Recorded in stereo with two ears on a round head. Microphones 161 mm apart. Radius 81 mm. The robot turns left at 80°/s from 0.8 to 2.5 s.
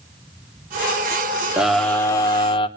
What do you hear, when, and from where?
1.6 s a scream: 170° right, 1.1 m; by 2.7 s 115° left, 1.1 m